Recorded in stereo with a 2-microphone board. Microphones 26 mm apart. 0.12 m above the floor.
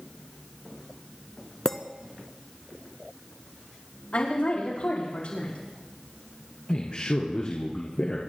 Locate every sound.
1.6 s a clink: 25° left (ahead or behind), 0.8 m
4.1 s a woman speaking: 50° left (ahead or behind), 6 m
6.7 s a man speaking: 40° left (ahead or behind), 1.8 m